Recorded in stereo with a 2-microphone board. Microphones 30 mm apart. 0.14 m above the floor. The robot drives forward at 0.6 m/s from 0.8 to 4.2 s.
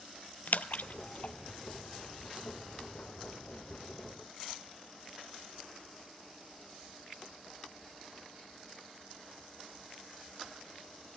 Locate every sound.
0.5 s a splash: 70° left (ahead or behind), 0.6 m; by 1.3 s 45° left (ahead or behind), 0.7 m